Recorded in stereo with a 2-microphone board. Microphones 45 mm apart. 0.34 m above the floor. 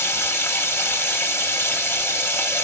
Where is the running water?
70° left (ahead or behind), 1.5 m.